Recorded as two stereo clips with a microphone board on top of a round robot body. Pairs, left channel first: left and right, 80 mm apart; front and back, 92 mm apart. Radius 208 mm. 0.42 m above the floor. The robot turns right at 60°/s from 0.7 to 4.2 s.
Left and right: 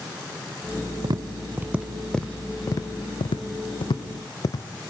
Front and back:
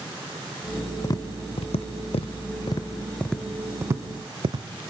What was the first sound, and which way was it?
Tapping, 55° right.